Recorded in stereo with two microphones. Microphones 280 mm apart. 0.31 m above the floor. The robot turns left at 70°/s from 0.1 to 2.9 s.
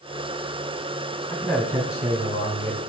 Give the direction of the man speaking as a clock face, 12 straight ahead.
12 o'clock.